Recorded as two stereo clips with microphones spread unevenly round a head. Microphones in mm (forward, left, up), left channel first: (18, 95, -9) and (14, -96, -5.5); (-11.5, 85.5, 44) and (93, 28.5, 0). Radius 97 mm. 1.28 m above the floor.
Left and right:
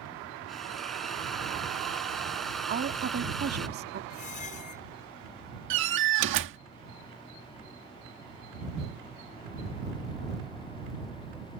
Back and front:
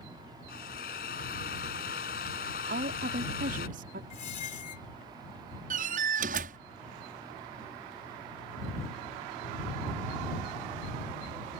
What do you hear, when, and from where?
0.5 s a drill: straight behind
2.7 s a woman speaking: 50° right
4.1 s a squeak: 145° left
5.7 s a door slam: 65° right